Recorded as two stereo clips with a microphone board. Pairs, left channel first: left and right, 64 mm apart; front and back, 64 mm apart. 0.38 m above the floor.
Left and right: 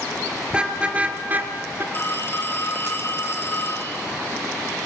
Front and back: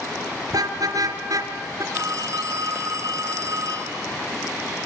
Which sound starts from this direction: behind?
A car horn, at 0.5 s.